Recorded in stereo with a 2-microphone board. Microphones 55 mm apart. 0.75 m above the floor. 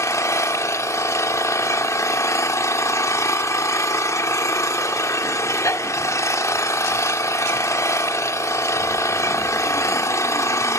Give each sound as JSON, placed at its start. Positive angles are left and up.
{"t": 0.0, "sound": "an engine running", "side_deg": 65, "distance_m": 1.4}